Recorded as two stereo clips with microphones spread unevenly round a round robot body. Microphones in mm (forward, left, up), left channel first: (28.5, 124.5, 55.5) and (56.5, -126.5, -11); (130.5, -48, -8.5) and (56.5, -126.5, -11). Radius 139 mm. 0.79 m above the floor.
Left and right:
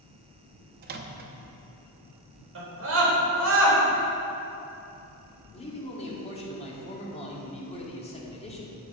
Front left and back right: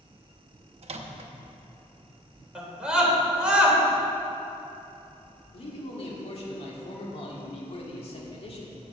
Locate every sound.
0.8 s a microwave: 125° right, 0.7 m
2.5 s a scream: 50° right, 3.5 m
5.5 s a man speaking: 25° left, 2 m